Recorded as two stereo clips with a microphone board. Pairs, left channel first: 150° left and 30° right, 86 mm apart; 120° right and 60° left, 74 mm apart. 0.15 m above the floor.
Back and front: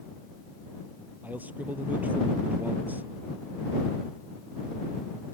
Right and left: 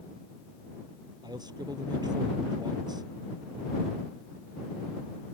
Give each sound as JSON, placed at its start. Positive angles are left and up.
{"t": 1.2, "sound": "a man speaking", "azimuth_deg": 40}